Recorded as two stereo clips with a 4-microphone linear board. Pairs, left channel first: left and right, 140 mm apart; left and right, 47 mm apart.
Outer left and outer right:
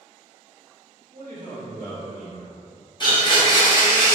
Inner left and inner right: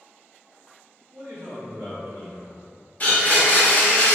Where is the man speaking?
80° right, 0.9 m.